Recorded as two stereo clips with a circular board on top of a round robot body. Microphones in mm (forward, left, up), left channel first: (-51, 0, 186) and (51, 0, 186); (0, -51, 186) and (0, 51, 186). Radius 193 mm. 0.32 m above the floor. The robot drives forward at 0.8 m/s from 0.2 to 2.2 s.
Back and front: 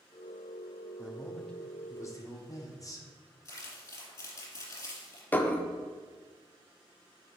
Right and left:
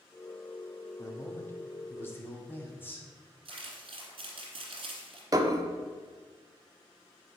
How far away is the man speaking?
About 1.2 m.